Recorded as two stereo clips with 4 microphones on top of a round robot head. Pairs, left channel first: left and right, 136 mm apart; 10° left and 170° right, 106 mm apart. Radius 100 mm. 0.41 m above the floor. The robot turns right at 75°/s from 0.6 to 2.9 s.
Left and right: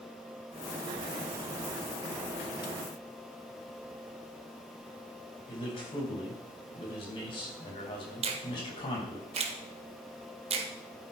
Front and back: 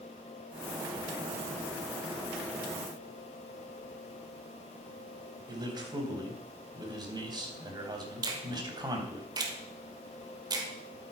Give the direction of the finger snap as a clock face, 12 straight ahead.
4 o'clock.